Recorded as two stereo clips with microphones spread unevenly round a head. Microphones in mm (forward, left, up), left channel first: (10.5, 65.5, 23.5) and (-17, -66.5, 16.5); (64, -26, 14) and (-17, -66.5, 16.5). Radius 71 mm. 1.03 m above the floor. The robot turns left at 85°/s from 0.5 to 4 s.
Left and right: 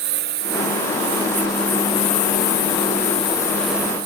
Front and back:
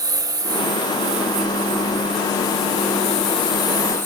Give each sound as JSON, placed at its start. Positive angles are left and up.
{"t": 0.0, "sound": "a lawn mower", "azimuth_deg": -105}